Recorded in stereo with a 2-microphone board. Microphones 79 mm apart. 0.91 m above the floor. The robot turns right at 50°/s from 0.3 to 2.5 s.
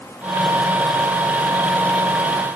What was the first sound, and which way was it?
Only background noise.